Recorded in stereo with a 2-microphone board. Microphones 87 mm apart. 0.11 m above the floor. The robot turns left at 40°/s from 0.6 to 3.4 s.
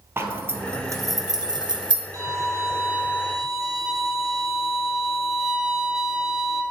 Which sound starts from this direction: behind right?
A violin, at 2.1 s.